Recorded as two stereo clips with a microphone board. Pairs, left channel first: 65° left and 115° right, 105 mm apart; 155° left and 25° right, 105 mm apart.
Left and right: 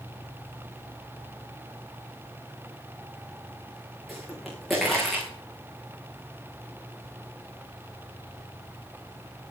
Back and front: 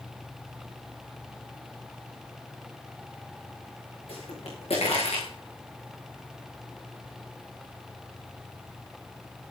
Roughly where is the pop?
Behind.